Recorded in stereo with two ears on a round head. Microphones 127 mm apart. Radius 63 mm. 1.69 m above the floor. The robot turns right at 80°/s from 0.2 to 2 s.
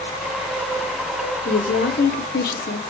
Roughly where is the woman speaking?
Ahead left.